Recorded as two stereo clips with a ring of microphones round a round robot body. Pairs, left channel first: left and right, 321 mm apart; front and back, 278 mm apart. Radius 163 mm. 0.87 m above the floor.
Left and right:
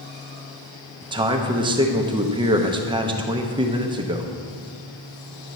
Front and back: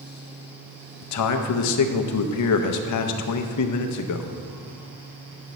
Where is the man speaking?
15° right, 0.6 m.